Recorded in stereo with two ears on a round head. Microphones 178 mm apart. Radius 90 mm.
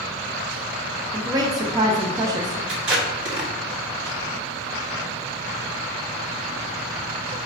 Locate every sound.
1.1 s a woman speaking: 20° right (ahead or behind), 0.7 m
2.7 s tape being pulled: 60° right (ahead or behind), 1.7 m